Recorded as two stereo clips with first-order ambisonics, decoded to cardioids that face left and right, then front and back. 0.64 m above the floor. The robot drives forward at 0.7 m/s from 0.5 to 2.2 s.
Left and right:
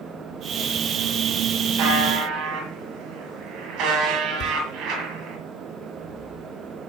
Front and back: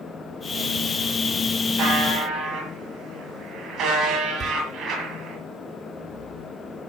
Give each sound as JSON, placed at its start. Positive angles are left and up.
{"t": 1.8, "sound": "a buzzer", "azimuth_deg": -130, "distance_m": 8.0}
{"t": 4.4, "sound": "a door slam", "azimuth_deg": 125, "distance_m": 1.8}